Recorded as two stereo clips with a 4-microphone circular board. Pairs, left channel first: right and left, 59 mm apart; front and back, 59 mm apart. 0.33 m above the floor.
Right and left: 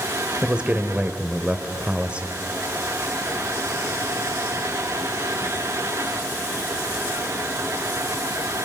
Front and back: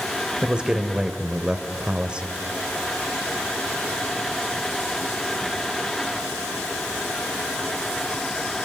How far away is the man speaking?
About 1.5 m.